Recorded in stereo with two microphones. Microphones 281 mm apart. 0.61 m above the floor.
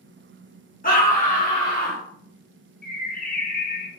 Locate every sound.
0.8 s a scream: 30° left (ahead or behind), 1.1 m
2.8 s a bird: 30° left (ahead or behind), 0.5 m